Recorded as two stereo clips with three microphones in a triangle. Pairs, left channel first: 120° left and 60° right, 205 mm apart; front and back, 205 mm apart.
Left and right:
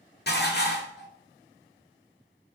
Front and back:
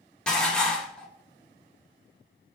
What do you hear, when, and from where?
0.3 s dishes clattering: 85° left, 0.7 m